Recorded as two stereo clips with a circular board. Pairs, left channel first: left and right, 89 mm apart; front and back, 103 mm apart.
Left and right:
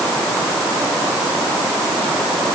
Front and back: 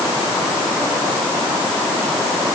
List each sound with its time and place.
Only background noise.